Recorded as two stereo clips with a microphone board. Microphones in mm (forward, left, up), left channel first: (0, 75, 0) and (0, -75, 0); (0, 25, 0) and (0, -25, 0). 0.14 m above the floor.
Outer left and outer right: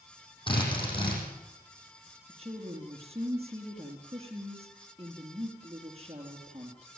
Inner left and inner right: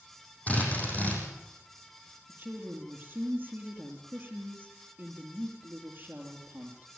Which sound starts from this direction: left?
A drill, at 0.5 s.